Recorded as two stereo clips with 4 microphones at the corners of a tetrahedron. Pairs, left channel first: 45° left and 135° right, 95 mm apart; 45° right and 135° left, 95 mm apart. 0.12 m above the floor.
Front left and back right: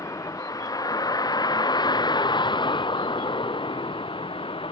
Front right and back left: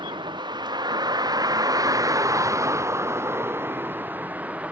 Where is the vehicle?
100° left; by 4.7 s 60° left.